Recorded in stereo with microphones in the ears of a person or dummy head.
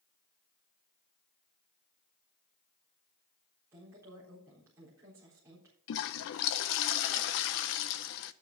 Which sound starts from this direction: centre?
A woman speaking, at 3.7 s.